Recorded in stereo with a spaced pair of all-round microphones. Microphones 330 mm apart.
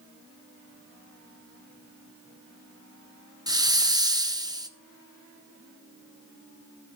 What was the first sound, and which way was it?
A hiss, 15° right (ahead or behind).